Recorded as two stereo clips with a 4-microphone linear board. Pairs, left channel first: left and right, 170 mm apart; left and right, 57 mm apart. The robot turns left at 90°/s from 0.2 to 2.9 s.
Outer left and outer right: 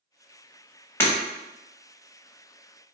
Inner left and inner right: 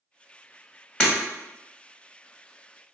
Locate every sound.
1.0 s breaking glass: 10° left (ahead or behind), 1.2 m; by 1.1 s 15° left (ahead or behind), 1.2 m